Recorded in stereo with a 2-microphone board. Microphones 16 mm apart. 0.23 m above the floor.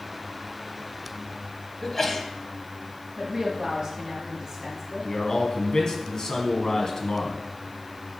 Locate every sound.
1.8 s a sneeze: 20° left (ahead or behind), 1.1 m
3.2 s a woman speaking: 25° right (ahead or behind), 2 m
5.0 s a man speaking: 45° left (ahead or behind), 1.5 m